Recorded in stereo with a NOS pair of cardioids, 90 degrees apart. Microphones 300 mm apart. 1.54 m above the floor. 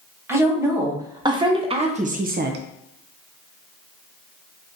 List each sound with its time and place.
0.3 s a woman speaking: 10° right, 1.5 m; by 2.6 s 65° right, 0.5 m